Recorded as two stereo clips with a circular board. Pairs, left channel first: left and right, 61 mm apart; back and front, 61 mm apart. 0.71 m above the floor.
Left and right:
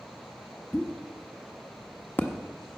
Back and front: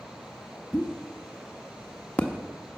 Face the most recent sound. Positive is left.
turn(degrees=125)